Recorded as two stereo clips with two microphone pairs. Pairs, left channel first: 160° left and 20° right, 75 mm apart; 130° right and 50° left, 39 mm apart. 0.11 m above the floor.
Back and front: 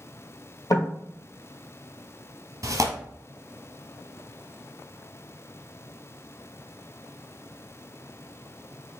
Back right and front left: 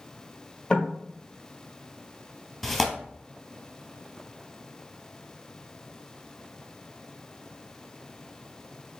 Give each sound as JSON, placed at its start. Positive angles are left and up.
{"t": 0.7, "sound": "knocking", "azimuth_deg": 165, "distance_m": 1.5}
{"t": 2.6, "sound": "tearing paper", "azimuth_deg": -50, "distance_m": 0.8}